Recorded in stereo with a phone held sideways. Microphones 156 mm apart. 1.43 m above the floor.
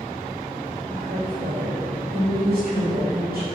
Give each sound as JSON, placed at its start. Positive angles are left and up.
{"t": 0.9, "sound": "a woman speaking", "side_deg": -80, "distance_m": 3.5}